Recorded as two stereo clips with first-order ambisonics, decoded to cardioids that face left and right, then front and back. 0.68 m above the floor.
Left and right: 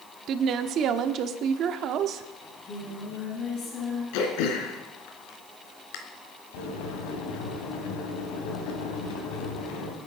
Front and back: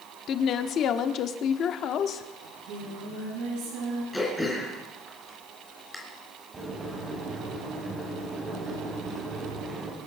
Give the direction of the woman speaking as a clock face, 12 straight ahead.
2 o'clock.